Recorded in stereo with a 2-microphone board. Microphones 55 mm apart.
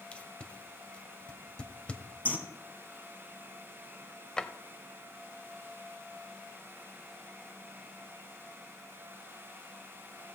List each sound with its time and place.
0.1 s tape being pulled: 20° left (ahead or behind), 1.2 m
2.2 s a bird: 35° left (ahead or behind), 1.7 m
4.4 s a drawer: 15° left (ahead or behind), 0.7 m